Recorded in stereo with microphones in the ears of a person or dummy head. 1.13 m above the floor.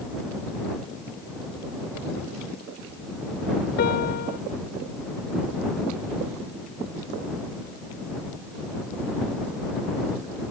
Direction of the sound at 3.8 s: 50° left (ahead or behind).